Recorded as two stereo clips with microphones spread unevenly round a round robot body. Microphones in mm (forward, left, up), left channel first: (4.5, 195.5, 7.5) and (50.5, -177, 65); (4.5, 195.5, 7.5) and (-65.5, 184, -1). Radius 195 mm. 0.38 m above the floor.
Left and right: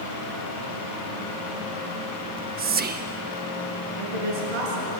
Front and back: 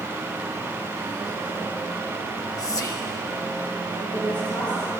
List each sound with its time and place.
2.2 s whispering: 15° right, 1.1 m
4.0 s a woman speaking: 95° right, 7 m